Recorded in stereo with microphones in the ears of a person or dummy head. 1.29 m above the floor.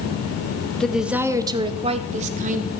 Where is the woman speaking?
5° left (ahead or behind), 1.3 m; by 2.7 s 45° right (ahead or behind), 2 m.